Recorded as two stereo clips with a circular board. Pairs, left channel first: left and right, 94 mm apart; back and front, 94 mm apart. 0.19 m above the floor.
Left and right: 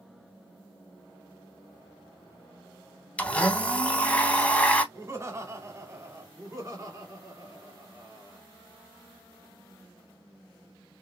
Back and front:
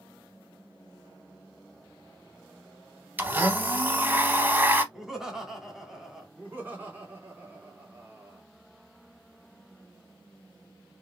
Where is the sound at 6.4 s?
60° right, 2 m.